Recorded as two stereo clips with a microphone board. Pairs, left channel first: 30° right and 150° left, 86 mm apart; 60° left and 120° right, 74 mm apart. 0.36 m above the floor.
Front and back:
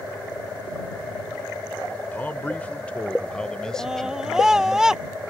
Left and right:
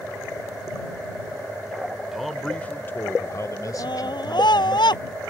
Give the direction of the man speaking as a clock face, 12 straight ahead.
2 o'clock.